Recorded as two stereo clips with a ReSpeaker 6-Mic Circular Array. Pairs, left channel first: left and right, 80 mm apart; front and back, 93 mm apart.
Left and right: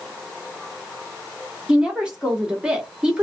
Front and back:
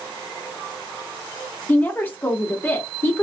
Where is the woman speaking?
30° right, 0.9 m.